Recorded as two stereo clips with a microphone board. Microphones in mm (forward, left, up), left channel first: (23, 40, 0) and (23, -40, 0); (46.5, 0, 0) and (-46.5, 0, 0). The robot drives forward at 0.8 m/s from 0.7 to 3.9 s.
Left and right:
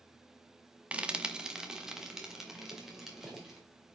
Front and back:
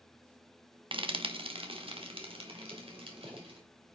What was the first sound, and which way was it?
Frying, 165° right.